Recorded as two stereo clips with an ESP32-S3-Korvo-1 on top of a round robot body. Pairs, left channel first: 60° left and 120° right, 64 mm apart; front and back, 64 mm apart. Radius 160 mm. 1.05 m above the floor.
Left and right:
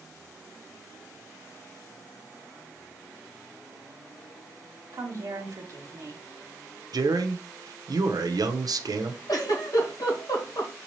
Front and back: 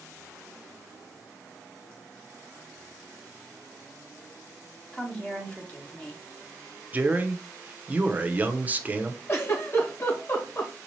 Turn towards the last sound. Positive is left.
turn(degrees=40)